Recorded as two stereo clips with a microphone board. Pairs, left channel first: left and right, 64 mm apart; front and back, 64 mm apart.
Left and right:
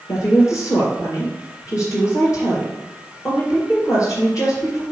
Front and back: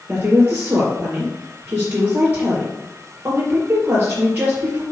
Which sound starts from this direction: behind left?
A woman speaking, at 0.1 s.